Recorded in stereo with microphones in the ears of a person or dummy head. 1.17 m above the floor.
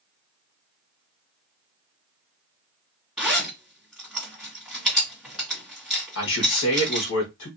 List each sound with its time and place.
3.2 s a zipper: centre (ahead or behind), 2.0 m
6.2 s a man speaking: 65° left (ahead or behind), 1.3 m